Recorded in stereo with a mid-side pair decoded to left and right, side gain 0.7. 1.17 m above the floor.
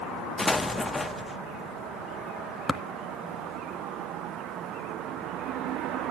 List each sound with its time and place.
0.4 s an explosion: 10° left, 0.7 m
2.7 s tapping: 15° left, 1.1 m